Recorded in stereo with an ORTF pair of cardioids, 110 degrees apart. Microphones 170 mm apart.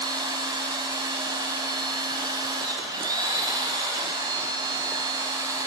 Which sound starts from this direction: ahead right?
A machine running, at 0.0 s.